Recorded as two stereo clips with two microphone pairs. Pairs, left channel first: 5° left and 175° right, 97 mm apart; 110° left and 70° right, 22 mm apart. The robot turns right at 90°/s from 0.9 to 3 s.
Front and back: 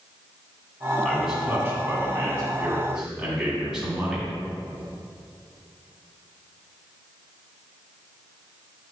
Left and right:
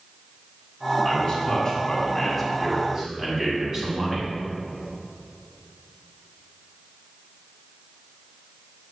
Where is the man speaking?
80° left, 1.9 m; by 4.3 s 100° right, 1.9 m.